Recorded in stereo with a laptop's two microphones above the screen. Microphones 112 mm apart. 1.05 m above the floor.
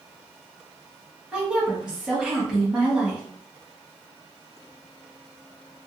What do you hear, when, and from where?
1.3 s a woman speaking: 5° right (ahead or behind), 1.2 m